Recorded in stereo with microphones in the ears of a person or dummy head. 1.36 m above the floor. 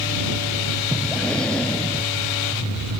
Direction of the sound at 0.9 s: 5° left (ahead or behind).